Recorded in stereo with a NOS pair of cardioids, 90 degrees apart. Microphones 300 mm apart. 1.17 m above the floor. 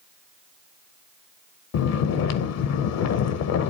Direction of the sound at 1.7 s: 60° left.